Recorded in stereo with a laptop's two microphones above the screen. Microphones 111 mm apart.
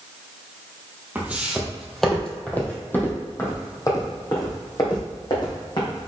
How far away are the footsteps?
About 1.9 m.